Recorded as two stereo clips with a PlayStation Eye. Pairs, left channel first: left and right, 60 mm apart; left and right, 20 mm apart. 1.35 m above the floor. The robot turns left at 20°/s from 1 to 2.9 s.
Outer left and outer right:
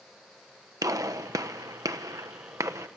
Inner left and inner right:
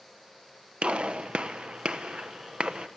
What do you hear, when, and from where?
0.8 s a gunshot: 70° right (ahead or behind), 1.2 m; by 2.9 s 60° right (ahead or behind), 1.2 m